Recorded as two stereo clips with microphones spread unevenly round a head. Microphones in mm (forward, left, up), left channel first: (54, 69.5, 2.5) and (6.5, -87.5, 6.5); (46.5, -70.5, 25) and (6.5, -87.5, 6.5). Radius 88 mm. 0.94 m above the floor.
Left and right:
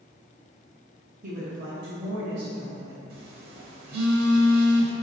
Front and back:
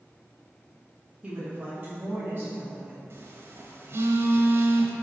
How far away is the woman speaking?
About 1.1 m.